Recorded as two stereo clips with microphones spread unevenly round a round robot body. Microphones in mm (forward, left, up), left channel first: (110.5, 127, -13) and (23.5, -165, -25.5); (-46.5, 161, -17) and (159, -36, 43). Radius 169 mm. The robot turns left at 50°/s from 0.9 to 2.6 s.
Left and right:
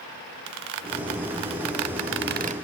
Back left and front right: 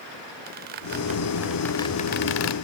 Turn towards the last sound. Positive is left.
turn(degrees=180)